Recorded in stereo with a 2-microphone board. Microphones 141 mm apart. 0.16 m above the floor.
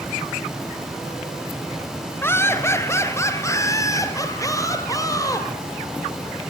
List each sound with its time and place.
2.2 s laughter: 15° left (ahead or behind), 2 m; by 5.5 s 25° left (ahead or behind), 4 m